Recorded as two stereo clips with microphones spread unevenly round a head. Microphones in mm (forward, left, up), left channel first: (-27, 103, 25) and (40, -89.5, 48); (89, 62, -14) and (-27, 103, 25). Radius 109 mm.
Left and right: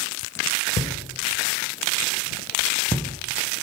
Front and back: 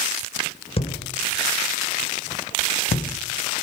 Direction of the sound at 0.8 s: 30° left.